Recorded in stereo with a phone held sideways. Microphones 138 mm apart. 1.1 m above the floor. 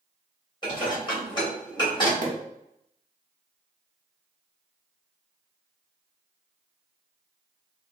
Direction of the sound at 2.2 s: 65° right (ahead or behind).